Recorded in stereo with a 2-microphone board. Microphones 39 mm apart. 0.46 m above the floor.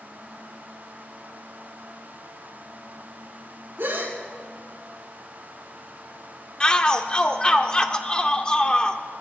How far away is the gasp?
About 5.5 m.